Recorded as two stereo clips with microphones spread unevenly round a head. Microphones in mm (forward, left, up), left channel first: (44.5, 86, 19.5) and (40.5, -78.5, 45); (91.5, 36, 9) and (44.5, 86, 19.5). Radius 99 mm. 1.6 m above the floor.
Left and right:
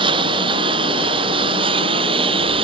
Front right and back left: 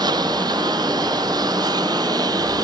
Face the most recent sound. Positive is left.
turn(degrees=-155)